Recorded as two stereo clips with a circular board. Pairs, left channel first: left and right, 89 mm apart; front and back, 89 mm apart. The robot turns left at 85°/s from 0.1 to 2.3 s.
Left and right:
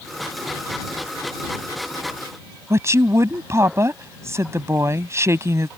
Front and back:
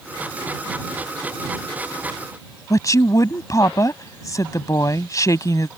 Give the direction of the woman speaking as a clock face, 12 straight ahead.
1 o'clock.